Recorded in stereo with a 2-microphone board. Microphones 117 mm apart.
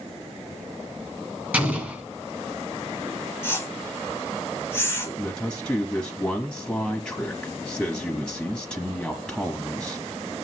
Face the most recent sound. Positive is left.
turn(degrees=5)  # may be behind; listen again after turning